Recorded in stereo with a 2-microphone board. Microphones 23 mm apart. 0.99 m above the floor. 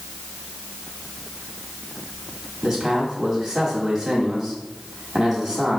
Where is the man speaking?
25° right (ahead or behind), 2 m.